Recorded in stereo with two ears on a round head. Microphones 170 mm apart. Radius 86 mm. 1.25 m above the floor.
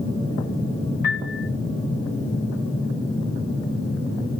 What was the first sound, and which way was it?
A piano, 55° left (ahead or behind).